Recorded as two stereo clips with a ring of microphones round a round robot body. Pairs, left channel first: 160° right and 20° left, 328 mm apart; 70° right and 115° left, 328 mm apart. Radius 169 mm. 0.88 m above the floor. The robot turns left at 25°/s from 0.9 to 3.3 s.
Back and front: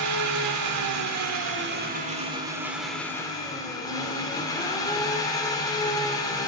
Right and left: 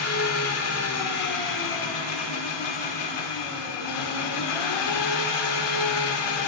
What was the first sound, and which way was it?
An engine running, 20° right.